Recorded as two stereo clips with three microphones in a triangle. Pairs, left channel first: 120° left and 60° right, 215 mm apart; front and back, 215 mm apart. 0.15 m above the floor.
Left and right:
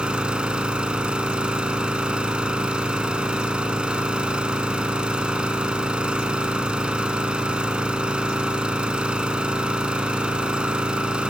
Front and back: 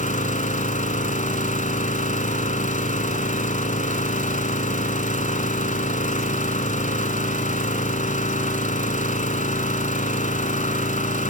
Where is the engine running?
25° left, 0.9 m.